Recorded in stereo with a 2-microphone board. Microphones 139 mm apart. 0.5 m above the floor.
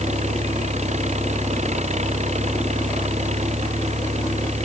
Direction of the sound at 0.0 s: 55° right (ahead or behind).